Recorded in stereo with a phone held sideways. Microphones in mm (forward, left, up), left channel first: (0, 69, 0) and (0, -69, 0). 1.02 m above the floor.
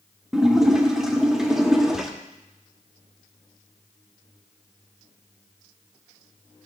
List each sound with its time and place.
0.3 s a splash: 5° right (ahead or behind), 0.7 m